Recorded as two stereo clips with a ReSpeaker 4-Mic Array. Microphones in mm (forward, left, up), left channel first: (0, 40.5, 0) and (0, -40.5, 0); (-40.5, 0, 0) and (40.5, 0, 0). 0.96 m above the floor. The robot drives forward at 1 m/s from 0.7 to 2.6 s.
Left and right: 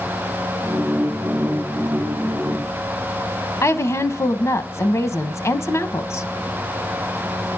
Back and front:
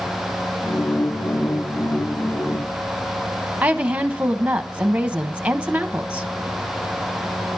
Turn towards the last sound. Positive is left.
turn(degrees=65)